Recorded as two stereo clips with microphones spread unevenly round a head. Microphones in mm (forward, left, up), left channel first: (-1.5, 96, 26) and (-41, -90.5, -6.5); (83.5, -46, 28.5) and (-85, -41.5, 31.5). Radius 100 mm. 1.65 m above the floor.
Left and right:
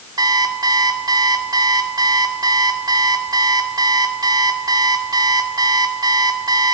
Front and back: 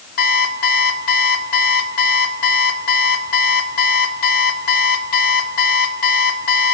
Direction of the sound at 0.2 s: 25° right.